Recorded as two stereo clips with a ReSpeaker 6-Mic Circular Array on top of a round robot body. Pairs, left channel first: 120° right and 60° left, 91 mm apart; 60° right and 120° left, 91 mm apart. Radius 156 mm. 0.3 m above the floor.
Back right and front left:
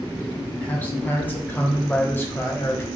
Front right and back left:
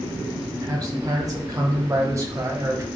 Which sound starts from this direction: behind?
A man speaking, at 0.6 s.